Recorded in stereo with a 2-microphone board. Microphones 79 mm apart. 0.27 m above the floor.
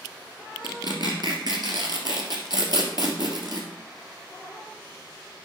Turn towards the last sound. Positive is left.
turn(degrees=-60)  # may be behind; listen again after turning